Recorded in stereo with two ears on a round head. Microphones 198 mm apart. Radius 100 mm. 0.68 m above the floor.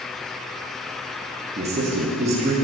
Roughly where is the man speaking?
Right.